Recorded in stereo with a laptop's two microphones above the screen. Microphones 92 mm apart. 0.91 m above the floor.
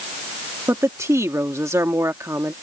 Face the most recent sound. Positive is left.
turn(degrees=-30)  # may be behind; listen again after turning